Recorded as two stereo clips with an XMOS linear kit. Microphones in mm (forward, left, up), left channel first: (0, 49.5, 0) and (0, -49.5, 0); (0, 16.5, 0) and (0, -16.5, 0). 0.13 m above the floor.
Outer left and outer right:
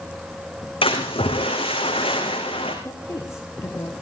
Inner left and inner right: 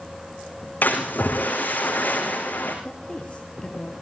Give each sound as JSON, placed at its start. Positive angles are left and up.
{"t": 0.8, "sound": "a splash", "side_deg": 65, "distance_m": 5.5}
{"t": 2.9, "sound": "a woman speaking", "side_deg": 30, "distance_m": 2.5}